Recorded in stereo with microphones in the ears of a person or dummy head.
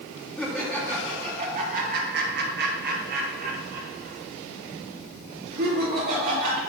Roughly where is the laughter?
Centre.